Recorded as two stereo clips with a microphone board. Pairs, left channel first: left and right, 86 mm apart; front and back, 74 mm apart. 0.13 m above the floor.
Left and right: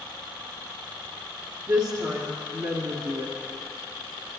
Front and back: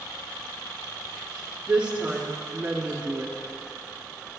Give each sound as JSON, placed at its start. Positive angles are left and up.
{"t": 1.7, "sound": "a woman speaking", "azimuth_deg": -120, "distance_m": 1.7}